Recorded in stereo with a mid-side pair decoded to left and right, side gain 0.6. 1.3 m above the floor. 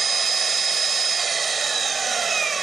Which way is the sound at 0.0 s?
25° right.